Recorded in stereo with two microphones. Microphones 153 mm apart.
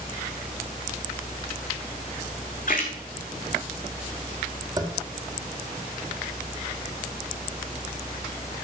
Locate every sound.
2.7 s a splash: 60° left (ahead or behind), 2 m
4.8 s tapping: 25° right (ahead or behind), 1.8 m